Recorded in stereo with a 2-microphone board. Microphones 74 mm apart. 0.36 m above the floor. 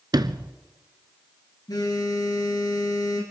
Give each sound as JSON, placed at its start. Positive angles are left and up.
{"t": 0.1, "sound": "a sliding door", "side_deg": -75, "distance_m": 0.6}
{"t": 1.7, "sound": "a phone buzzing", "side_deg": 65, "distance_m": 3.5}